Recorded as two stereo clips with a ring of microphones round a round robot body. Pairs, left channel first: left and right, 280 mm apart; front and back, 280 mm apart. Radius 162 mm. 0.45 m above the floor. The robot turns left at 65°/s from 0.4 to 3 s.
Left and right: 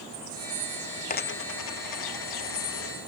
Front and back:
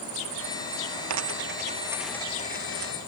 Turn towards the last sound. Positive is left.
turn(degrees=30)